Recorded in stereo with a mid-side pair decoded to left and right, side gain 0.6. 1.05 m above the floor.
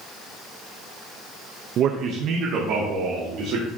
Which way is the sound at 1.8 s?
50° right.